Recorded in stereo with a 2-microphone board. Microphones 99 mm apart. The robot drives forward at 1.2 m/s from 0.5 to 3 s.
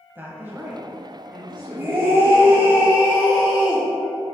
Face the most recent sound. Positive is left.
turn(degrees=-15)  # may be behind; listen again after turning